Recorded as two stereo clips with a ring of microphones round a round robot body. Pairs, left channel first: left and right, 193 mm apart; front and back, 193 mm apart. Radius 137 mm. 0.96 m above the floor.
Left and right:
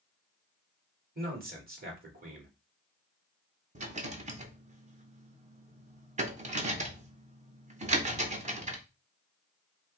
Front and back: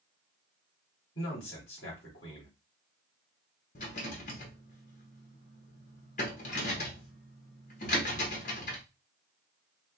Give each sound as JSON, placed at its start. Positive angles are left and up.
{"t": 1.1, "sound": "a man speaking", "azimuth_deg": -50, "distance_m": 2.5}
{"t": 3.8, "sound": "a rattle", "azimuth_deg": -45, "distance_m": 1.0}